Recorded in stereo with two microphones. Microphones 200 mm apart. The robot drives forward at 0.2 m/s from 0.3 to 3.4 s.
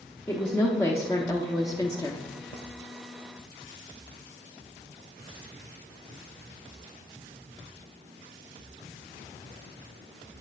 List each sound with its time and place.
0.3 s a woman speaking: 15° left (ahead or behind), 0.8 m; by 2.3 s 20° left (ahead or behind), 0.6 m